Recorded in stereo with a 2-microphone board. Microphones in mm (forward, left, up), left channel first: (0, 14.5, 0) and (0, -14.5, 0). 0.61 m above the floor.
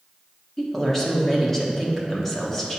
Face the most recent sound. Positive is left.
turn(degrees=15)  # may be behind; listen again after turning